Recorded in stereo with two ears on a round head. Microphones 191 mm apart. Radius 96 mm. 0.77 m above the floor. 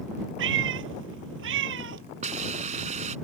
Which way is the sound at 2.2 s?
35° right (ahead or behind).